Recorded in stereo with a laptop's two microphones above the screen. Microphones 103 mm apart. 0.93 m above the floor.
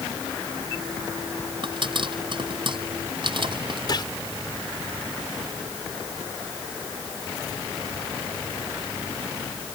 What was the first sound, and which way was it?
A pop, 55° right (ahead or behind).